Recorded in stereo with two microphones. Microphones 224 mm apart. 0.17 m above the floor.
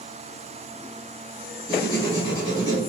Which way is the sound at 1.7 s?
15° left (ahead or behind).